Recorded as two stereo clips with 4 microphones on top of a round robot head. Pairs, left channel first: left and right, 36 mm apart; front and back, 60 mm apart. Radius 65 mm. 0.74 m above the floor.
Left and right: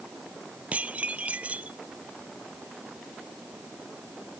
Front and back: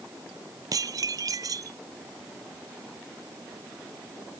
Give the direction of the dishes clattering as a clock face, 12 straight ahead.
5 o'clock.